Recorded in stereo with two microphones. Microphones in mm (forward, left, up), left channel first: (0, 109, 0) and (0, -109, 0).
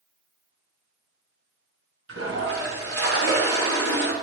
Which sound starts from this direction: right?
A toilet flushing, at 2.1 s.